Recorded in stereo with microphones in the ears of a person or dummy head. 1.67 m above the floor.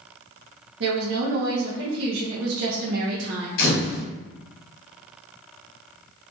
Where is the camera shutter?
55° left (ahead or behind), 1.3 m.